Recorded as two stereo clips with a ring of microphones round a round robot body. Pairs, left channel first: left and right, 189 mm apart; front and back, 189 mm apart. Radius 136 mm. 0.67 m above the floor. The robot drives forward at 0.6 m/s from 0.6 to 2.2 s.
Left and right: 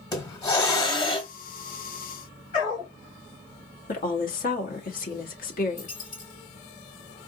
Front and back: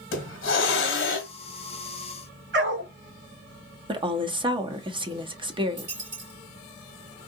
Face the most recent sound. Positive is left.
turn(degrees=155)